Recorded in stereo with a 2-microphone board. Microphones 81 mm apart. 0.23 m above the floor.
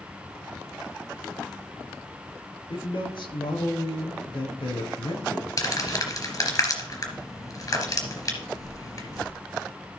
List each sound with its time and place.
2.7 s a man speaking: 70° left (ahead or behind), 3.5 m
5.6 s crumpling: 45° left (ahead or behind), 3.5 m